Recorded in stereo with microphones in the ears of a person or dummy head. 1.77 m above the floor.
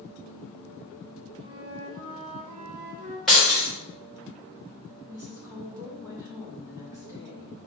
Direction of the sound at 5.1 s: 10° right (ahead or behind).